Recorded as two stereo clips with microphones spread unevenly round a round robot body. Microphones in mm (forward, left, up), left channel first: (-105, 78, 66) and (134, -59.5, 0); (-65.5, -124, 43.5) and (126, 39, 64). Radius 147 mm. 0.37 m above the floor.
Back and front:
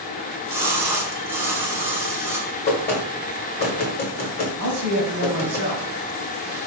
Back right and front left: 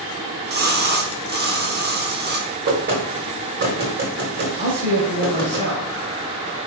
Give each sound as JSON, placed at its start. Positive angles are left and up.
{"t": 0.2, "sound": "a splash", "azimuth_deg": 25, "distance_m": 0.9}
{"t": 2.7, "sound": "knocking", "azimuth_deg": 90, "distance_m": 1.2}
{"t": 4.6, "sound": "a man speaking", "azimuth_deg": -5, "distance_m": 2.5}